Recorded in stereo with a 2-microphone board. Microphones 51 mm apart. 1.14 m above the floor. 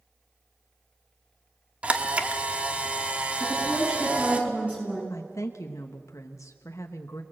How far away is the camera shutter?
About 1.3 m.